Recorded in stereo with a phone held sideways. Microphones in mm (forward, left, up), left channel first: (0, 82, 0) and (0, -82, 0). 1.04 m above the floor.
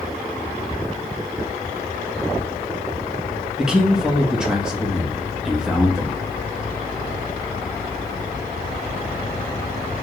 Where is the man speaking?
5° right (ahead or behind), 1.5 m.